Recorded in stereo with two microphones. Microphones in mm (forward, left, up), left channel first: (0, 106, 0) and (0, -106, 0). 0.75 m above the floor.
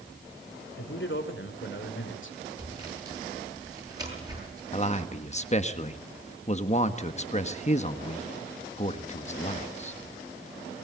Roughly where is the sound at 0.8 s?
Left.